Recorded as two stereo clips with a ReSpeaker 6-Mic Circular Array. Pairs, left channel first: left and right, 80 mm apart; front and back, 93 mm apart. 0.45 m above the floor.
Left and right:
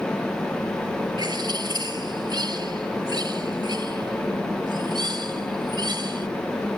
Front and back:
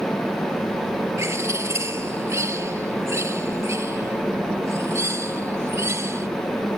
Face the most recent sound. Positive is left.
turn(degrees=-120)